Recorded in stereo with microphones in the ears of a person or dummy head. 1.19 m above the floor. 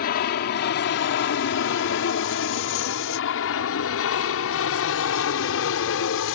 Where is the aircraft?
55° left (ahead or behind); by 6.4 s 70° left (ahead or behind).